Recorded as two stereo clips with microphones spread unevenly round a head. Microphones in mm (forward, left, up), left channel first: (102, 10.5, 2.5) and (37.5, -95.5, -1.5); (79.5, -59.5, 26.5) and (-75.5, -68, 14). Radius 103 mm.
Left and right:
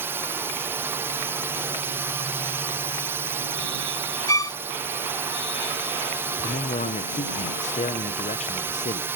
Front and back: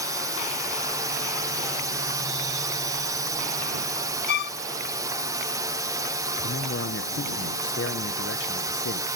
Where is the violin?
5° right.